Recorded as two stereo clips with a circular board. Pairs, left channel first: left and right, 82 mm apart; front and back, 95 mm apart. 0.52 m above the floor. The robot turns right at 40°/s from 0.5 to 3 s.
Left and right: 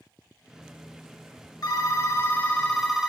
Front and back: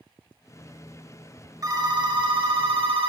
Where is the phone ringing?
130° left, 1.1 m; by 3.1 s 175° right, 1.1 m.